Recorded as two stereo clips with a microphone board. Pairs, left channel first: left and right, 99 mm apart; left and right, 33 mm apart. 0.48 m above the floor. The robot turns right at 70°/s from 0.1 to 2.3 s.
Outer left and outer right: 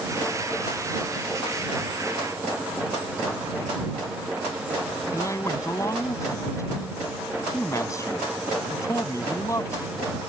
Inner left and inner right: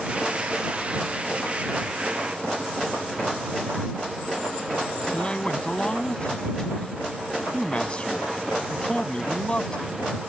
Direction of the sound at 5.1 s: 30° left (ahead or behind).